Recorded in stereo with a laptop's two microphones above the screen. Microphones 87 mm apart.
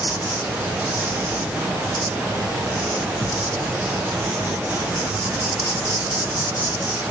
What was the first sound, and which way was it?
An insect, 20° right (ahead or behind).